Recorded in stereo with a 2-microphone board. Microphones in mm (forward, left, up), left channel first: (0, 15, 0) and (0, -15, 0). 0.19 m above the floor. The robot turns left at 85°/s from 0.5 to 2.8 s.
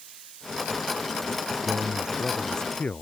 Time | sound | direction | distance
1.6 | a man speaking | 120° right | ?